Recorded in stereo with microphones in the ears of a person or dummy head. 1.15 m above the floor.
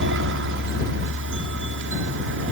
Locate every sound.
0.0 s a helicopter: 60° right (ahead or behind)